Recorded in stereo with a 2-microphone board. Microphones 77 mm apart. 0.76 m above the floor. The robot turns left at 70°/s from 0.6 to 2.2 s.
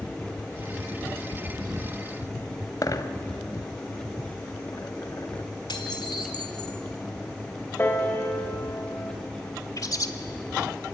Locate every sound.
2.8 s a dropped coin: 55° left (ahead or behind), 1.1 m
5.7 s dishes clattering: 75° left (ahead or behind), 1.8 m
7.8 s a piano: 30° left (ahead or behind), 3 m
9.8 s a bird: 50° left (ahead or behind), 1.6 m